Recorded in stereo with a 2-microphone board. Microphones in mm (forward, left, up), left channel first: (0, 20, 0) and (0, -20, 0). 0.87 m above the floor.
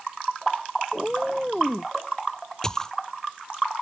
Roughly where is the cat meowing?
Centre.